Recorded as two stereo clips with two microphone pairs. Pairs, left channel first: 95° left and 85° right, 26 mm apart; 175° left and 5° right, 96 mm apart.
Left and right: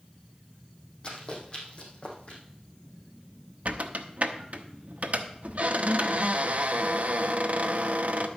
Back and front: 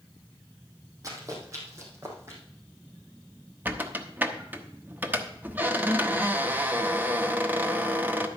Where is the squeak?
80° right, 1.0 m.